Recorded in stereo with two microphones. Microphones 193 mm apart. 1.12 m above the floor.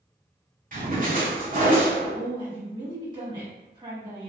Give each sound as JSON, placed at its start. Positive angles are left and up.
{"t": 0.7, "sound": "a splash", "side_deg": -45, "distance_m": 0.8}
{"t": 2.1, "sound": "a woman speaking", "side_deg": -25, "distance_m": 1.5}